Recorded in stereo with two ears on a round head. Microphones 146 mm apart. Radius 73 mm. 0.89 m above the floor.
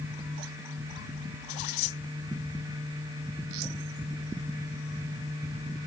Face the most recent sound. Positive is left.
No sound to turn to.